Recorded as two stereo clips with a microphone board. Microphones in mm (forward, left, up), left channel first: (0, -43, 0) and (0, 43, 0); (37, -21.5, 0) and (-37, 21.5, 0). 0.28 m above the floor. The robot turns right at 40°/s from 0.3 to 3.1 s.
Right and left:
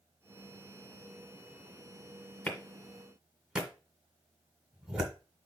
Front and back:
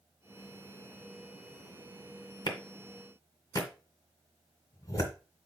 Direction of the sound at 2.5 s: 20° right.